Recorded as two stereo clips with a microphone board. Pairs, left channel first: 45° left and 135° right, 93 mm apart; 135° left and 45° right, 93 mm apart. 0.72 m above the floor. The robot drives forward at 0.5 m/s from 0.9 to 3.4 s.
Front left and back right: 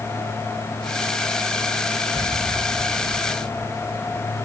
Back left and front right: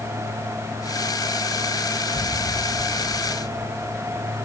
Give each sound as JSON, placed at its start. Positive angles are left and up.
{"t": 2.1, "sound": "an explosion", "azimuth_deg": 170}